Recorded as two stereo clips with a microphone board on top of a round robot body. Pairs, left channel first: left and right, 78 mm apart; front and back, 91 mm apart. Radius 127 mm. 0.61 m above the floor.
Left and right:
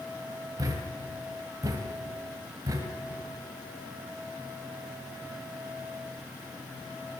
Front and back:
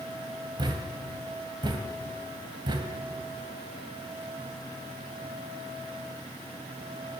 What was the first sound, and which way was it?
A thud, 140° right.